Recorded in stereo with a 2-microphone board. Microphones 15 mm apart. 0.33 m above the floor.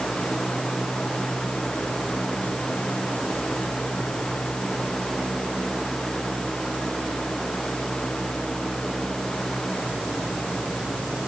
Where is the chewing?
I don't hear chewing.